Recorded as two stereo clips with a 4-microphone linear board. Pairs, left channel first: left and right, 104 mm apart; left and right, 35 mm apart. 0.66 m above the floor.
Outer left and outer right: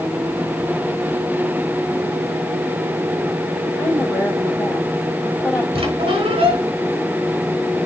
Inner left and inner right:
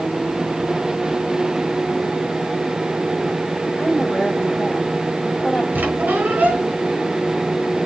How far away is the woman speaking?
About 3.5 m.